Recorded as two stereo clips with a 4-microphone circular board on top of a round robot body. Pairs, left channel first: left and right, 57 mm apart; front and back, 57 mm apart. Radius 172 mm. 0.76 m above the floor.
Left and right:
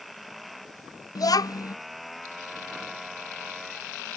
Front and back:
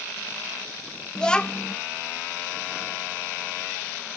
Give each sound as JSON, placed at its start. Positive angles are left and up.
{"t": 1.1, "sound": "a child speaking", "azimuth_deg": 80}